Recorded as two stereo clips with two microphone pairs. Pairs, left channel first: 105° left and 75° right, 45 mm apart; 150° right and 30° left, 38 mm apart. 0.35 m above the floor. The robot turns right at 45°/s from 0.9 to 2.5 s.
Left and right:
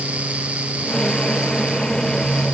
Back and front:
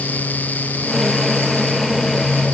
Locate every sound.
Only background noise.